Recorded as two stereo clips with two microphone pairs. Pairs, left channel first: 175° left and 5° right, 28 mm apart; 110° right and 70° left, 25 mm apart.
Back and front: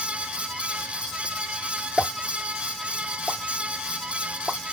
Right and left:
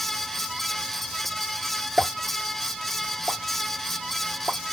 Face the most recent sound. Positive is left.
turn(degrees=75)